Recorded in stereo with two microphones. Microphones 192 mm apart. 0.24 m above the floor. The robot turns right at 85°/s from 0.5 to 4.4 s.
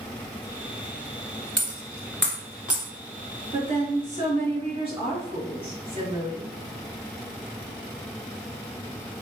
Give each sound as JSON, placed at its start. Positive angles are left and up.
{"t": 1.6, "sound": "a dropped coin", "side_deg": 65, "distance_m": 1.2}
{"t": 3.5, "sound": "a woman speaking", "azimuth_deg": -125, "distance_m": 1.3}